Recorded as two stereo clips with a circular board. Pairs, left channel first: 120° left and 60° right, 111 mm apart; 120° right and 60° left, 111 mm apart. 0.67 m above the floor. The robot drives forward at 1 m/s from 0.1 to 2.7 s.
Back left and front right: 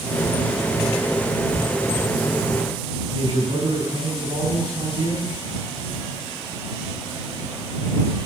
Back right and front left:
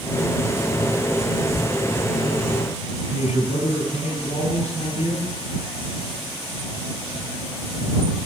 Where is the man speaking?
110° right, 8 m.